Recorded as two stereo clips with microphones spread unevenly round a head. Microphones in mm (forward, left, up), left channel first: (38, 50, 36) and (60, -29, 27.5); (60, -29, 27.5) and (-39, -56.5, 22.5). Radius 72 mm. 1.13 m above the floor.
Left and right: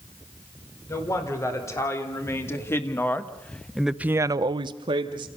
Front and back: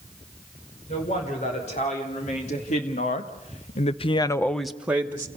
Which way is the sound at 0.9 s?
55° left.